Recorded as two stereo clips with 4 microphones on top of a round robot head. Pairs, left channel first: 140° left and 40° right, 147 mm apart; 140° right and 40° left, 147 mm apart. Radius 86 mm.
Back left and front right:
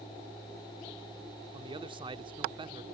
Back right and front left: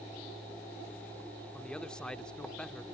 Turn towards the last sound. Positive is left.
turn(degrees=-55)